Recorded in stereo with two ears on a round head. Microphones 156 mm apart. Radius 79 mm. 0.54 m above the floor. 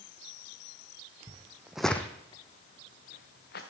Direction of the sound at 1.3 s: 30° right (ahead or behind).